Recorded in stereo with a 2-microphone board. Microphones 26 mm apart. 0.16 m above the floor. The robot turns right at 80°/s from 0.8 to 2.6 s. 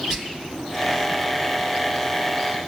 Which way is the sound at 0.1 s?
20° right (ahead or behind).